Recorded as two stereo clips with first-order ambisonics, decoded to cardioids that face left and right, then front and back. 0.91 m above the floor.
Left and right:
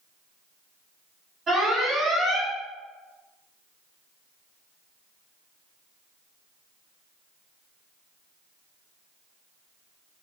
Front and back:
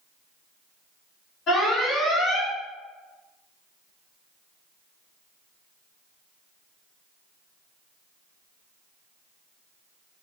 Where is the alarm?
30° right, 1.4 m.